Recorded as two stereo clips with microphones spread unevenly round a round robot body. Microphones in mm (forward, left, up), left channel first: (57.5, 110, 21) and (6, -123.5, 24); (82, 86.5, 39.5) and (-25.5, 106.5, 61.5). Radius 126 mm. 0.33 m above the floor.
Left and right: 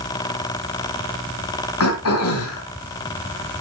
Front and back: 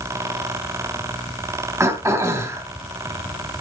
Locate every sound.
1.8 s throat clearing: 100° left, 3.5 m